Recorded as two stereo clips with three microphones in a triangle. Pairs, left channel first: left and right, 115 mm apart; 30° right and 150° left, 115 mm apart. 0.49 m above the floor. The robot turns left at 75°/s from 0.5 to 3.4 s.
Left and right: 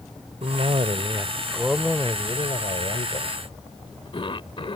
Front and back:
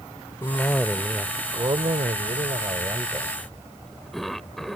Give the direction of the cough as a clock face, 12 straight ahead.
3 o'clock.